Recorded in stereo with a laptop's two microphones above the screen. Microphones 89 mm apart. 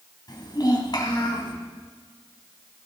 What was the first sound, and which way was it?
A child speaking, 45° left (ahead or behind).